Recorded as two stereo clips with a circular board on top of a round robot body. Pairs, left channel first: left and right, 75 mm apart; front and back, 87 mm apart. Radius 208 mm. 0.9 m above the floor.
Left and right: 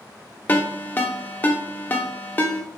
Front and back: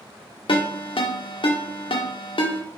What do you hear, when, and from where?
0.5 s a ringtone: 20° left, 0.7 m